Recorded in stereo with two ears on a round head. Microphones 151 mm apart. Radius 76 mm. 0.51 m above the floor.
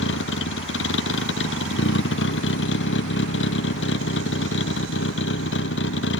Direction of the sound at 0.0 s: 85° left.